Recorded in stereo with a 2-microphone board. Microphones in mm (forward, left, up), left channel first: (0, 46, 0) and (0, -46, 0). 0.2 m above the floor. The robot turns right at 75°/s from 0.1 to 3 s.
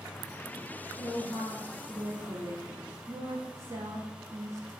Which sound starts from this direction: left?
A woman speaking, at 1.0 s.